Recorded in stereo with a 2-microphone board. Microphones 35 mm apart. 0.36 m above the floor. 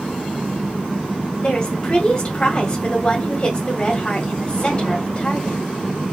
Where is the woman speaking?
30° left (ahead or behind), 1.6 m.